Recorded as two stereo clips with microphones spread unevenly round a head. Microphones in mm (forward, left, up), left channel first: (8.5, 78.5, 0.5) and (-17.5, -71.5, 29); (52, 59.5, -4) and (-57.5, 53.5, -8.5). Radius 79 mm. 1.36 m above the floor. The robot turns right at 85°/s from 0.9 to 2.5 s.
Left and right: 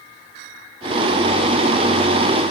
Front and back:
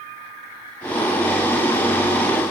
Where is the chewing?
No chewing in this recording.